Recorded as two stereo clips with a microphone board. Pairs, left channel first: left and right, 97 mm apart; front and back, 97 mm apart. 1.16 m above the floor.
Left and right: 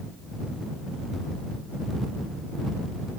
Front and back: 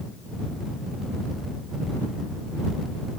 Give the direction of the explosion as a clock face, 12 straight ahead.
I don't hear an explosion.